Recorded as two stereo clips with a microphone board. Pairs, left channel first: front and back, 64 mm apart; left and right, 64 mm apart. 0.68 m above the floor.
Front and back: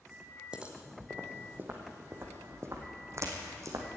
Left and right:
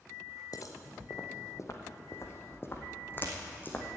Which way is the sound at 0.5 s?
105° left.